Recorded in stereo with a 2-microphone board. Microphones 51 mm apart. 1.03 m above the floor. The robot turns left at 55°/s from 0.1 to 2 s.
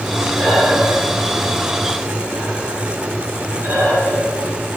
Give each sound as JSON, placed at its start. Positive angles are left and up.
{"t": 0.3, "sound": "breathing", "side_deg": 30, "distance_m": 6.5}